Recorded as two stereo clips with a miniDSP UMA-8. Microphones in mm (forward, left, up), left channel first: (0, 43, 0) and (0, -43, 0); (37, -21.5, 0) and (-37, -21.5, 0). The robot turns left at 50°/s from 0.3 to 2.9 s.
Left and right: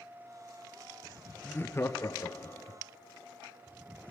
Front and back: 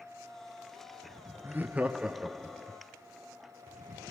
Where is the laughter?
145° left, 0.5 m; by 2.8 s 75° left, 0.5 m.